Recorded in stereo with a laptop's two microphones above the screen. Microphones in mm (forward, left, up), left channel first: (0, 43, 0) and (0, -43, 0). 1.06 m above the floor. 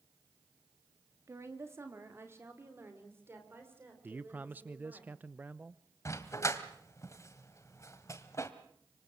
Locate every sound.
1.3 s a woman speaking: 35° right (ahead or behind), 2.5 m; by 5.0 s 25° right (ahead or behind), 5.5 m
4.0 s a man speaking: 20° right (ahead or behind), 0.7 m
6.0 s a dog barking: 35° left (ahead or behind), 1.5 m